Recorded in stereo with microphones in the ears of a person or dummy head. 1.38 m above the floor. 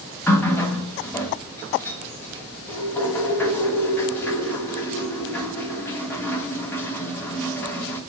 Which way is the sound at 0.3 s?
15° left (ahead or behind).